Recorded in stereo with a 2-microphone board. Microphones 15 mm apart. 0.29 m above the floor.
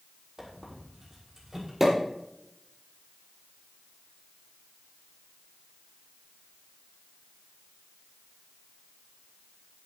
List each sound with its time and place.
0.4 s a squeak: 25° right (ahead or behind), 6.5 m
1.8 s a pop: 20° right (ahead or behind), 6.5 m